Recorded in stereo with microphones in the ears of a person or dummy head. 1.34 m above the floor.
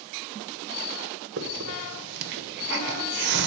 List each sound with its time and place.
1.4 s a hiss: 65° right (ahead or behind), 1.3 m